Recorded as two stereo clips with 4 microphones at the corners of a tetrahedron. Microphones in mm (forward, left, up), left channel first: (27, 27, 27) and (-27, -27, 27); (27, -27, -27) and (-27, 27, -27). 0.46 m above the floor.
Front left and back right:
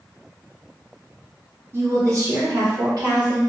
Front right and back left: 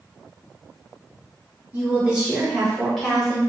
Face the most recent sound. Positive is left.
turn(degrees=-135)